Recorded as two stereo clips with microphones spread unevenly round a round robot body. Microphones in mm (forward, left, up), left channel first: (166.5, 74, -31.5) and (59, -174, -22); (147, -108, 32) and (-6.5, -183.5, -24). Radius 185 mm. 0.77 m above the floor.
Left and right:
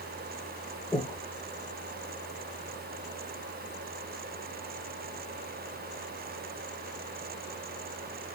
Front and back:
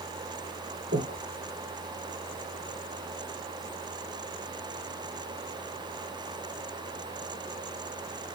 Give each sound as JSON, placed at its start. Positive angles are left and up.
{"t": 0.9, "sound": "breathing", "azimuth_deg": 155, "distance_m": 1.4}